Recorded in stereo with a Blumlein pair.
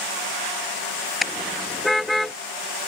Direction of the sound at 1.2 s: 10° left.